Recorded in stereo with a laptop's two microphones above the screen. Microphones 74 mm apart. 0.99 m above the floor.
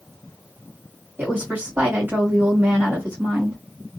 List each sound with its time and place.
1.2 s a woman speaking: 25° right (ahead or behind), 1.3 m